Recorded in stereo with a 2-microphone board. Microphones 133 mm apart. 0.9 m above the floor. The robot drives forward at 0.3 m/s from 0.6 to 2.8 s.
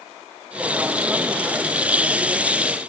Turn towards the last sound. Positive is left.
No sound to turn to.